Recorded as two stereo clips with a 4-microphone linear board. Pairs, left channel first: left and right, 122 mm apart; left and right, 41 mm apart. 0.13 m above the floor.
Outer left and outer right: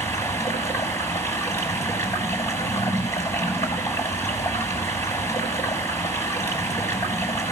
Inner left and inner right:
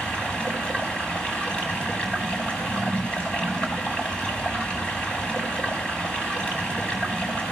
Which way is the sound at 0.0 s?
25° left (ahead or behind).